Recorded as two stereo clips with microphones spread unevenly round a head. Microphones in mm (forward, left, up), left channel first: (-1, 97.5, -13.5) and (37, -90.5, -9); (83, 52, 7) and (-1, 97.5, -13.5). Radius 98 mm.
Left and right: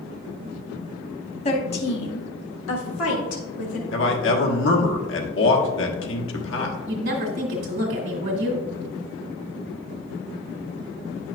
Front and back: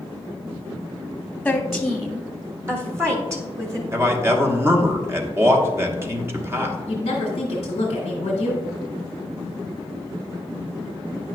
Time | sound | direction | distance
1.4 | a woman speaking | 55° left | 1.2 m
3.9 | a man speaking | 100° left | 1.4 m
6.9 | a woman speaking | 55° right | 1.7 m